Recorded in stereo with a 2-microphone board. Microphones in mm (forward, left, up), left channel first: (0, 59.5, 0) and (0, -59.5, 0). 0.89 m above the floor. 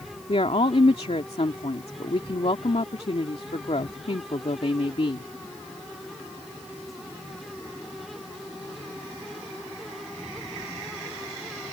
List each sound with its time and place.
0.3 s a woman speaking: 55° left (ahead or behind)